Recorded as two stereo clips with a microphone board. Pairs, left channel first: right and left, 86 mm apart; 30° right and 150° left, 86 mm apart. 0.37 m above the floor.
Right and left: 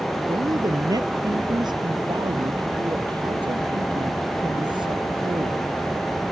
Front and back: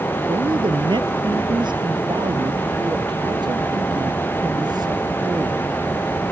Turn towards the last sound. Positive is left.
turn(degrees=115)